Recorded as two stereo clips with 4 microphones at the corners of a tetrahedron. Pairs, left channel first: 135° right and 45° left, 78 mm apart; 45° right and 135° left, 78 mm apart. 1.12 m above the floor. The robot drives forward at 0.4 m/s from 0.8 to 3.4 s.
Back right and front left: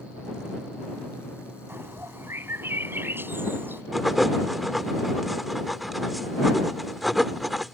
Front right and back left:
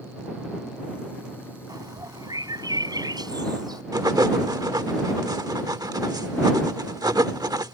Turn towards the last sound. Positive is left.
turn(degrees=135)